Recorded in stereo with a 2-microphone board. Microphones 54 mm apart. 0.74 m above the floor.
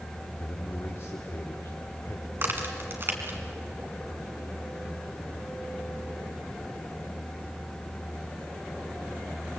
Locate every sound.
0.4 s a man speaking: 50° left (ahead or behind), 1.9 m; by 2.2 s 65° left (ahead or behind), 2.5 m
2.3 s a crack: 45° right (ahead or behind), 2.5 m